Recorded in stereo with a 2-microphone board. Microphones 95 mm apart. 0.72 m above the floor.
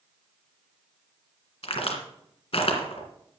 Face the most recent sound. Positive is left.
turn(degrees=75)  # may be behind; listen again after turning